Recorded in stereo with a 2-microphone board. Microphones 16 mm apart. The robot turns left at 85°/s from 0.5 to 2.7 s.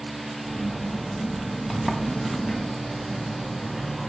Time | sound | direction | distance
1.7 | a sliding door | 130° left | 1.0 m